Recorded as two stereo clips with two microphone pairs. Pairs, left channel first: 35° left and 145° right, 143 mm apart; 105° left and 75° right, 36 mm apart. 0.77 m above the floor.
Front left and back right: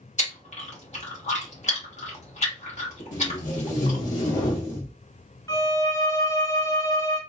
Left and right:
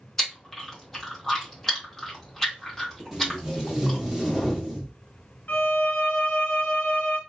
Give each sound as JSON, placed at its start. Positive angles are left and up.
{"t": 0.2, "sound": "chewing", "azimuth_deg": 35, "distance_m": 1.2}
{"t": 3.1, "sound": "tape being pulled", "azimuth_deg": 10, "distance_m": 1.1}
{"t": 5.5, "sound": "a violin", "azimuth_deg": 100, "distance_m": 1.3}